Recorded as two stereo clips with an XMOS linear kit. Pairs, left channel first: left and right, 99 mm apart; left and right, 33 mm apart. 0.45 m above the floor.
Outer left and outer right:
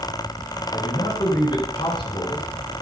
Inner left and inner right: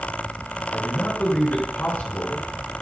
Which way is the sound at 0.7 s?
50° left (ahead or behind).